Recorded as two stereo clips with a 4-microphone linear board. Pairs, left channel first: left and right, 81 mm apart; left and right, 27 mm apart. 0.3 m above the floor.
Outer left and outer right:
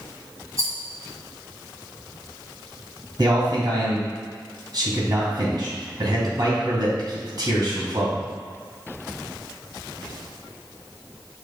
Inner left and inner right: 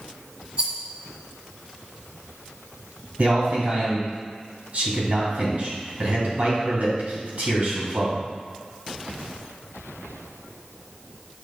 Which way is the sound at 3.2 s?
60° right (ahead or behind).